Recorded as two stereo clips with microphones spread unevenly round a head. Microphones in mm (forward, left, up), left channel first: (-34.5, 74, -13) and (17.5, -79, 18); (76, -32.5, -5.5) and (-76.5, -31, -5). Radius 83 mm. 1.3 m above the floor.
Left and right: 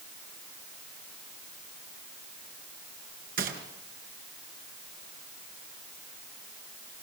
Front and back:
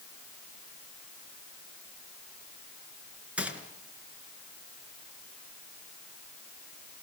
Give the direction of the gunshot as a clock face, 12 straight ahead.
3 o'clock.